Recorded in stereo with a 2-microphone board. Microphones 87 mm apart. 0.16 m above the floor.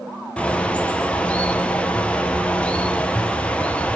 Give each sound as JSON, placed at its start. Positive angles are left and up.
{"t": 0.4, "sound": "a bird", "side_deg": 15, "distance_m": 0.5}